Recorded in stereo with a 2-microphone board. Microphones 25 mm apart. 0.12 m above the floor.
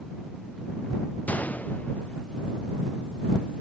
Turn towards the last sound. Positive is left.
turn(degrees=70)  # may be behind; listen again after turning